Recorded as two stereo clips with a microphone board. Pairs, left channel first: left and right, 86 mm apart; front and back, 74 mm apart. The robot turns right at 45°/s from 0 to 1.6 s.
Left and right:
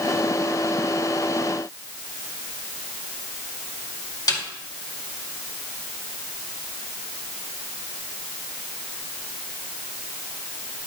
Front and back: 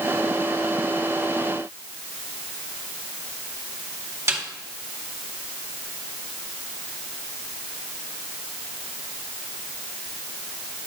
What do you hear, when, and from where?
4.3 s a snare drum: 130° left, 2.0 m